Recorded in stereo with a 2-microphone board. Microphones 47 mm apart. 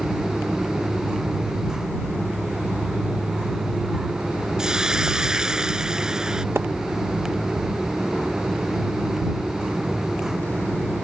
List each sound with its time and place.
4.6 s a hiss: 15° right (ahead or behind)
6.5 s a splash: 60° right (ahead or behind)